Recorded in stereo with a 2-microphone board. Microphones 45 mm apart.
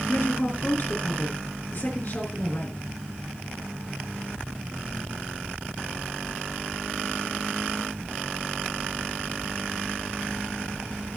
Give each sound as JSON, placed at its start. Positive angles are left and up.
{"t": 0.1, "sound": "a woman speaking", "side_deg": 45, "distance_m": 4.0}